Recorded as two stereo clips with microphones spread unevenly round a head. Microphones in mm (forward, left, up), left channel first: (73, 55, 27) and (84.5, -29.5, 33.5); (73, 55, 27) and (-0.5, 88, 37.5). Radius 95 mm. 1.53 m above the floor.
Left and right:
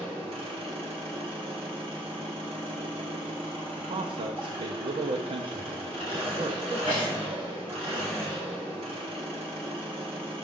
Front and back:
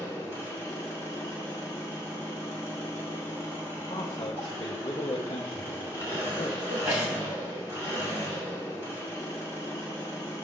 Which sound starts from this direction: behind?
A sneeze, at 6.7 s.